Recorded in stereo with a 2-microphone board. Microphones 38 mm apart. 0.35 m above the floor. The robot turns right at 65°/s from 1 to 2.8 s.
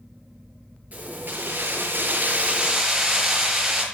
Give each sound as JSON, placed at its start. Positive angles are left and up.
{"t": 0.9, "sound": "keys jangling", "azimuth_deg": -135, "distance_m": 5.5}